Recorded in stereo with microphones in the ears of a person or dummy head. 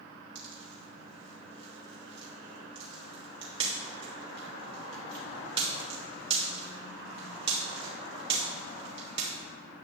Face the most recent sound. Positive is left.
turn(degrees=-30)  # may be behind; listen again after turning